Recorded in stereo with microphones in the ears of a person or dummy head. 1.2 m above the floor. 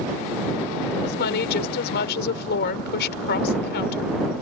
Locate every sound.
1.0 s a woman speaking: 55° left (ahead or behind)